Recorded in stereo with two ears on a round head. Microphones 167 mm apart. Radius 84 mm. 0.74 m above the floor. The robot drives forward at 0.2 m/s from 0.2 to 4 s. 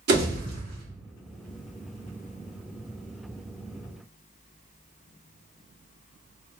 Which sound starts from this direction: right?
A pop, at 0.1 s.